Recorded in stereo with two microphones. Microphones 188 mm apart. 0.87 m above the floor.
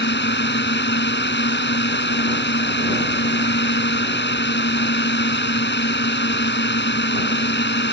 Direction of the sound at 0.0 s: 70° left (ahead or behind).